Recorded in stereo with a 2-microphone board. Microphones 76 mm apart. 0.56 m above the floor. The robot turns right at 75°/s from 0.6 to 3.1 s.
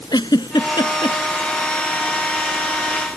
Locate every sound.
0.1 s a giggle: 70° left (ahead or behind); by 1.2 s 65° left (ahead or behind)